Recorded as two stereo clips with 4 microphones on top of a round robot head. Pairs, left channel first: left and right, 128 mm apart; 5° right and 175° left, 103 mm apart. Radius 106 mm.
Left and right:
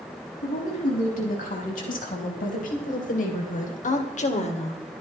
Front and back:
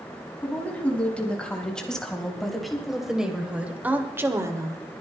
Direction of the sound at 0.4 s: 70° left.